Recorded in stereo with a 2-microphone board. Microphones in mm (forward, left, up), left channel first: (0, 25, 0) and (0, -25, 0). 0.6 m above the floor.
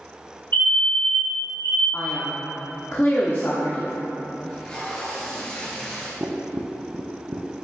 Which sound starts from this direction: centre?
Tape being pulled, at 4.5 s.